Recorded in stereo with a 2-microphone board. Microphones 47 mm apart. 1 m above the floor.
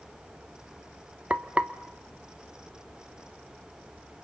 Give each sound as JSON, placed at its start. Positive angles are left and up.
{"t": 1.3, "sound": "frying", "side_deg": -25, "distance_m": 1.0}